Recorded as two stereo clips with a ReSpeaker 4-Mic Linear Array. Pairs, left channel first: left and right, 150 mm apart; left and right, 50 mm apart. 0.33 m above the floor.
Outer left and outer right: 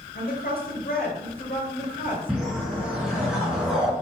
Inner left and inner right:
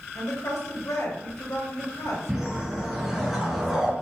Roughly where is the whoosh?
Centre.